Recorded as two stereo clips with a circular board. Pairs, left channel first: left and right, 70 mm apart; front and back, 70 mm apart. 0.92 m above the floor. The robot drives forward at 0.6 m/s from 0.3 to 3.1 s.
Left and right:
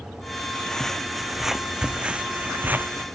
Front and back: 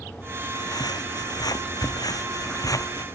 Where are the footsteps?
10° left; by 3.0 s 30° right.